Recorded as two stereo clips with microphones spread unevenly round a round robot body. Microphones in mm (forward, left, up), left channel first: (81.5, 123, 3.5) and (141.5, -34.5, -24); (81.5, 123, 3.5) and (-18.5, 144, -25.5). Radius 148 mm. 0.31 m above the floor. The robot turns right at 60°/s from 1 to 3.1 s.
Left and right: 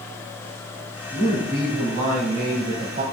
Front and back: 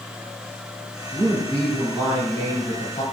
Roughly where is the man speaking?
Behind.